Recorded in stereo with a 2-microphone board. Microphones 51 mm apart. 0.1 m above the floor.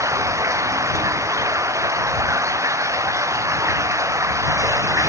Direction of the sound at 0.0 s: 70° right (ahead or behind).